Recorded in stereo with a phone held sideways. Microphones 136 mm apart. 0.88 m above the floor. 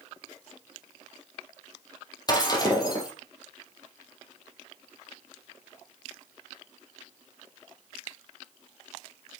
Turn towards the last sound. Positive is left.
turn(degrees=30)  # may be behind; listen again after turning